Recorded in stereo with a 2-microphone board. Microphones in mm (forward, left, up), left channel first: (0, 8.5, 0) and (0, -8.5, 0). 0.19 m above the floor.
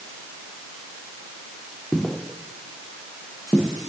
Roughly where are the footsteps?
Left.